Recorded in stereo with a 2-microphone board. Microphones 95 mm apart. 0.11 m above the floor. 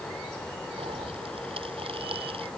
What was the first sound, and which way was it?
A pop, 80° right.